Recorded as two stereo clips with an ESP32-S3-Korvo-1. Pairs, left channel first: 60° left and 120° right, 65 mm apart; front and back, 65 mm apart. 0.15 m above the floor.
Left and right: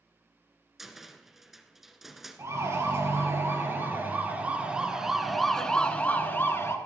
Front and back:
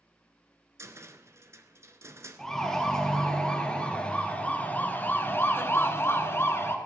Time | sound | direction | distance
0.8 | a cupboard door | 155° left | 1.2 m
2.4 | a siren | 80° right | 3.5 m